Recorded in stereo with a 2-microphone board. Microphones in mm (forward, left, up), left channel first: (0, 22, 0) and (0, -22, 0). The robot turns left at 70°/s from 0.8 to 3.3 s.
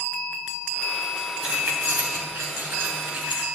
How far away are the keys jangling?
About 2.5 m.